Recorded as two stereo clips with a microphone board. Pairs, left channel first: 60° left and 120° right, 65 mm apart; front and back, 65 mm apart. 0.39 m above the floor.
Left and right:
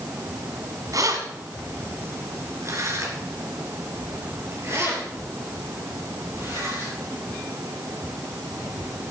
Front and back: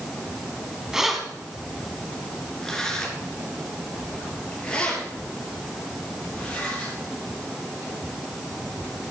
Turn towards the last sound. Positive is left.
turn(degrees=-70)